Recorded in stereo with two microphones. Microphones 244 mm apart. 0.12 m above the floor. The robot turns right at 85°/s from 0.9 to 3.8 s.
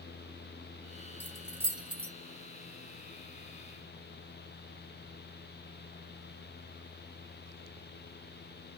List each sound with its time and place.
1.2 s keys jangling: 10° left (ahead or behind), 0.9 m; by 2.1 s 25° right (ahead or behind), 0.9 m